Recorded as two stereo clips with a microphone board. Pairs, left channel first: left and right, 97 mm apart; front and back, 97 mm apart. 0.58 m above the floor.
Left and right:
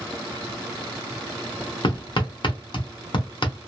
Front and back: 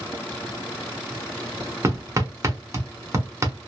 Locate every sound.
1.8 s hammering: 120° left, 0.9 m